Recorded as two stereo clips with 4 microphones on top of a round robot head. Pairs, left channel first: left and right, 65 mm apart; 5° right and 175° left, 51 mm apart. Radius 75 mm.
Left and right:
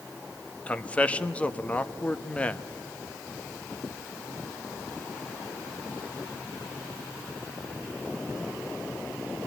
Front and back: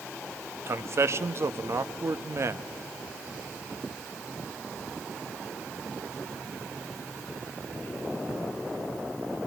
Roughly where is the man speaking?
Behind.